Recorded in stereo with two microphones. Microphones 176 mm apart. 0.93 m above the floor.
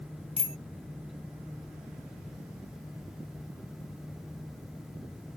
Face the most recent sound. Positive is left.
turn(degrees=-40)  # may be behind; listen again after turning